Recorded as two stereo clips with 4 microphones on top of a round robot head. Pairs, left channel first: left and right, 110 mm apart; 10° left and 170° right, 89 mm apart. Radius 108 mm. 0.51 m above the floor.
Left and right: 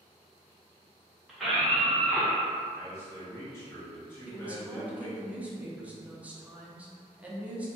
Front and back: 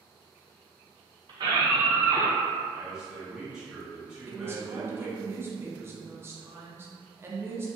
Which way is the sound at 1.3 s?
175° right.